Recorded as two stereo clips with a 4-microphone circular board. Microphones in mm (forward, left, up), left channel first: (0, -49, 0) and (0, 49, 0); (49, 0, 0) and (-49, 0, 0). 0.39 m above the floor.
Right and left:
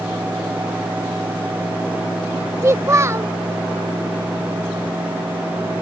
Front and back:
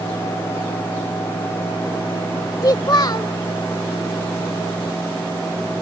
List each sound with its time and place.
2.6 s a child speaking: 35° left